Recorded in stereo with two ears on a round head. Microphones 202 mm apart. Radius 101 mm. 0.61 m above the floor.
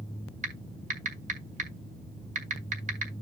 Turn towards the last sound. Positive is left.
turn(degrees=-35)  # may be behind; listen again after turning